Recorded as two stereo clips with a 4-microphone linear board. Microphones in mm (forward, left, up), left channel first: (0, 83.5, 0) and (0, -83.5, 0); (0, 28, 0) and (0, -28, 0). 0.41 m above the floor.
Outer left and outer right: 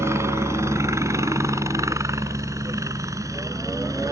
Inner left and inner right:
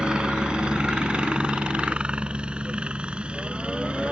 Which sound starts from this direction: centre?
A helicopter, at 0.0 s.